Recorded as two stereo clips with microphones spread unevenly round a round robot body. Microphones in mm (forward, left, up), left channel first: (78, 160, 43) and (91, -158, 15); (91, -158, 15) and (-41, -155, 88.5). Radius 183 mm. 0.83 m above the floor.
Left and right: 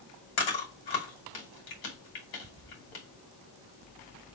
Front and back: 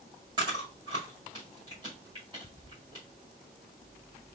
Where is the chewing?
100° left, 2.5 m.